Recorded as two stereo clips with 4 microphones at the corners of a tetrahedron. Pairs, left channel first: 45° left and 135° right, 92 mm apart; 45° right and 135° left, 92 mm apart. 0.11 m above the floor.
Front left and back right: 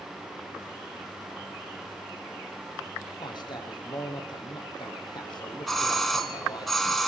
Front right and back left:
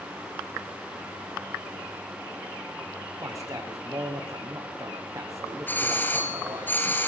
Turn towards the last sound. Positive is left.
turn(degrees=-40)